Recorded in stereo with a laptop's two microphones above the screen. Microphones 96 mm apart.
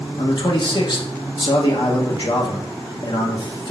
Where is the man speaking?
55° left (ahead or behind), 0.8 m.